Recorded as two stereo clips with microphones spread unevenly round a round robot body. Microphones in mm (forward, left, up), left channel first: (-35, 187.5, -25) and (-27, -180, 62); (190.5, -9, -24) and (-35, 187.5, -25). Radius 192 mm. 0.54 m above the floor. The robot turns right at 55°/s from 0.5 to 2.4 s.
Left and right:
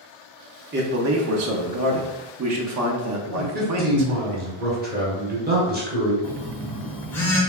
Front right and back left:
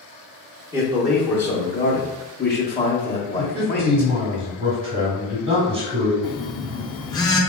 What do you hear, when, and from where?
0.7 s a man speaking: 155° right, 0.7 m; by 4.4 s 60° right, 0.7 m
3.4 s a man speaking: 160° right, 1.5 m
6.2 s a phone buzzing: 30° left, 0.5 m